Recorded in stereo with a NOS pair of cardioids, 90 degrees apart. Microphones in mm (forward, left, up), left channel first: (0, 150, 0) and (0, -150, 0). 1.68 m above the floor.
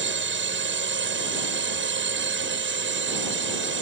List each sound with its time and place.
0.0 s a drone: 40° right